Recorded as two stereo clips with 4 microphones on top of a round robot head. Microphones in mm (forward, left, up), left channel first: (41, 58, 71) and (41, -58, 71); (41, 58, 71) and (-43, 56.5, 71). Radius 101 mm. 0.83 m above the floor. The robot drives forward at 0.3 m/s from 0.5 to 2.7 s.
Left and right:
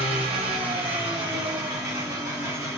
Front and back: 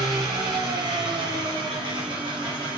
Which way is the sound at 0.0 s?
130° right.